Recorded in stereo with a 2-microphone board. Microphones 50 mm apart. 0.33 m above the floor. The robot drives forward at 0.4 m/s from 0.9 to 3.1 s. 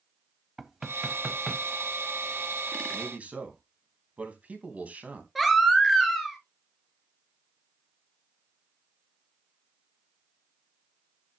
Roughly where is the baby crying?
Centre.